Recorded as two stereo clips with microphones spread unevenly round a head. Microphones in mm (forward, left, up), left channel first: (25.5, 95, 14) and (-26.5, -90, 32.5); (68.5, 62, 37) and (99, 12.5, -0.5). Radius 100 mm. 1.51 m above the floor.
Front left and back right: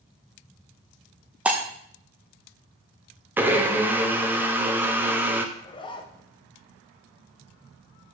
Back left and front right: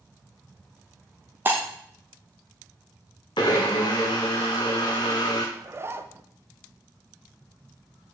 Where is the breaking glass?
170° right, 0.7 m.